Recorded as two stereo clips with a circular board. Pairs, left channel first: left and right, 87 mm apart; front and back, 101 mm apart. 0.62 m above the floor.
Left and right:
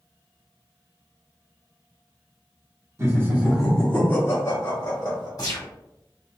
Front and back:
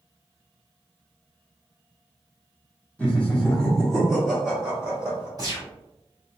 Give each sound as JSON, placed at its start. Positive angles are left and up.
{"t": 3.0, "sound": "laughter", "azimuth_deg": -70, "distance_m": 1.0}
{"t": 5.4, "sound": "a gunshot", "azimuth_deg": 130, "distance_m": 1.5}